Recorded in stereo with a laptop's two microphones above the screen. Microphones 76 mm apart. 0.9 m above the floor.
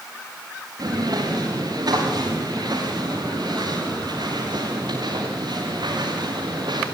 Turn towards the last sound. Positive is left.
turn(degrees=-75)  # may be behind; listen again after turning